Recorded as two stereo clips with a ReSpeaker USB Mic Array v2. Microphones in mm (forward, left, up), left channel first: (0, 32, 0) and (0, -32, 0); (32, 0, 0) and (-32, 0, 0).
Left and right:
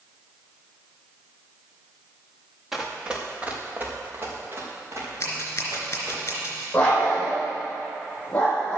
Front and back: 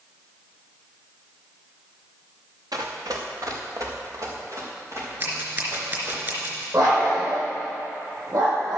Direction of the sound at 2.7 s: 175° right.